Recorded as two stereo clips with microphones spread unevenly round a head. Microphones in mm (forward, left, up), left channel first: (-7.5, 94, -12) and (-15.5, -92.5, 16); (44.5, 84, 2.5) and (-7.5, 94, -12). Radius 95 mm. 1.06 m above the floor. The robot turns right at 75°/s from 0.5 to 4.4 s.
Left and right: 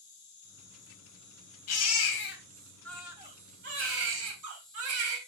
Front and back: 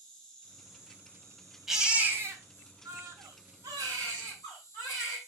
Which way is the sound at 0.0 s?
65° left.